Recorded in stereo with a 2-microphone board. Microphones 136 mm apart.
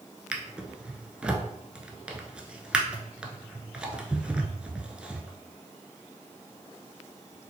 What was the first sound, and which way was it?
A drawer, 10° right (ahead or behind).